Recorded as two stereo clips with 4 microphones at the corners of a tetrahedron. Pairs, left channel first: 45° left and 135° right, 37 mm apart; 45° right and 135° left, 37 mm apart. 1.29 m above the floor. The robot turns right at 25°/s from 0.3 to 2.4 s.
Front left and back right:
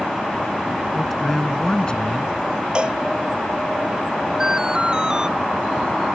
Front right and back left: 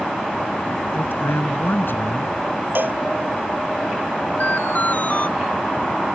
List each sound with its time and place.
0.9 s a man speaking: 45° right; by 2.3 s 10° right
2.8 s a cowbell: 160° left
4.4 s an alarm: 70° right